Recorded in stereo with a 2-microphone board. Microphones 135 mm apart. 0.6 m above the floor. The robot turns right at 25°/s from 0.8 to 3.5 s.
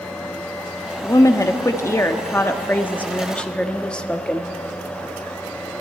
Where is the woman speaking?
25° left (ahead or behind), 0.7 m; by 4.5 s 10° left (ahead or behind), 0.7 m.